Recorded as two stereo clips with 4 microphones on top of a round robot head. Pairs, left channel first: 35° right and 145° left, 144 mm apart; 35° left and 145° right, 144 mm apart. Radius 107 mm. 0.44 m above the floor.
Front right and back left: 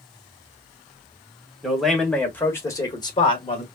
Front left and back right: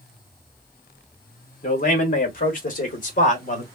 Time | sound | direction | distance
1.6 | a man speaking | 55° left | 1.7 m